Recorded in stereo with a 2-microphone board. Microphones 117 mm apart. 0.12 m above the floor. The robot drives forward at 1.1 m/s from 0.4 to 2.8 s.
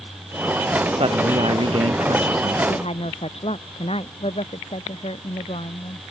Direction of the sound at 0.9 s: 50° right (ahead or behind).